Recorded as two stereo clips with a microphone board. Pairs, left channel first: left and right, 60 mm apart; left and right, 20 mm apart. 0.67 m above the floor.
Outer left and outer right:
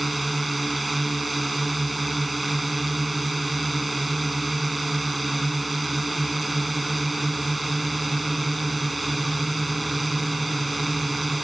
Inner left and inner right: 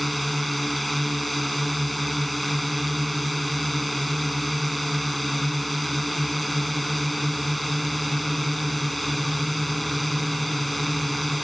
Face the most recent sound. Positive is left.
turn(degrees=0)  # may be behind; listen again after turning